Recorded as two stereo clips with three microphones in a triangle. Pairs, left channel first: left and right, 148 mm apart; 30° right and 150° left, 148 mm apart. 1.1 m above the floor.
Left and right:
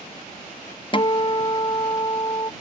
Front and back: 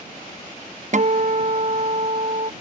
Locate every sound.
0.9 s a guitar: 135° left